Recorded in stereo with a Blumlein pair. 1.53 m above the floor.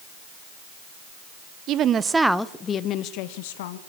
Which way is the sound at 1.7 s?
35° right.